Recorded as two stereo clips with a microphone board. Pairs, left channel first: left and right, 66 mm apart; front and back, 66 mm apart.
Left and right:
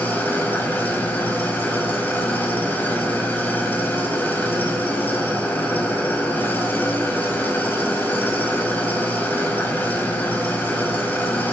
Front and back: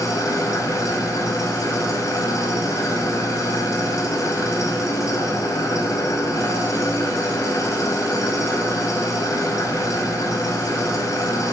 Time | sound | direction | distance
0.0 | an engine running | 30° left | 4.5 m